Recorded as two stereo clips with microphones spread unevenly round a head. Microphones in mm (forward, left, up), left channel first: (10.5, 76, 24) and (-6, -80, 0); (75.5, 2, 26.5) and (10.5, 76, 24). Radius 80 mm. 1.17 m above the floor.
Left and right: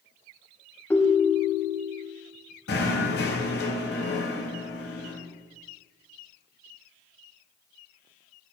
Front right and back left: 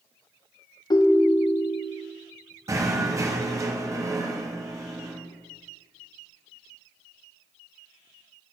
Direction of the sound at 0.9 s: 5° left.